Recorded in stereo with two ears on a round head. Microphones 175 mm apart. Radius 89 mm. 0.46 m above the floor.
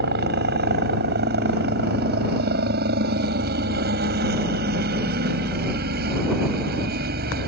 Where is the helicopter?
55° right (ahead or behind).